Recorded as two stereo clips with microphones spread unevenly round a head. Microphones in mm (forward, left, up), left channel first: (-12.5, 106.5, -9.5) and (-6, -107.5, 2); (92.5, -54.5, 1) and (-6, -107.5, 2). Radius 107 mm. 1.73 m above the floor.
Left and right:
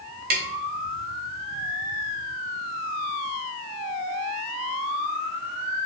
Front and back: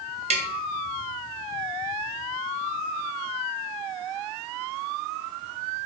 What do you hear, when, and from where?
0.3 s tapping: 135° right, 0.6 m